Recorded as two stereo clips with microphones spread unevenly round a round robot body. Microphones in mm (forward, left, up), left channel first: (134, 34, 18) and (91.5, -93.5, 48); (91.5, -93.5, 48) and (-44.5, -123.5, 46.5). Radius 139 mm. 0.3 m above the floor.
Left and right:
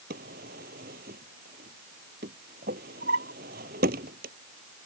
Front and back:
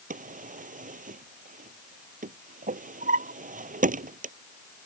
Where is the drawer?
145° right.